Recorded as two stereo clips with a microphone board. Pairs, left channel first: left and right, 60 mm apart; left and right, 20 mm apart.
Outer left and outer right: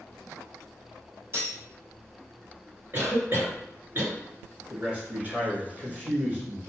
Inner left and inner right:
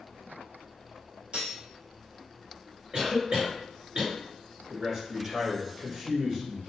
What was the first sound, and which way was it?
Cutlery clinking, 45° right (ahead or behind).